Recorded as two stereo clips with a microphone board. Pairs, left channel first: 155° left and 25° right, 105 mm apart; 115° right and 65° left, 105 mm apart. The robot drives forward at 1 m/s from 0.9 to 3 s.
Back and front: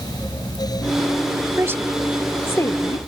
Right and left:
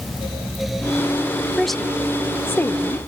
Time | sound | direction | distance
1.6 | a woman speaking | 20° right | ?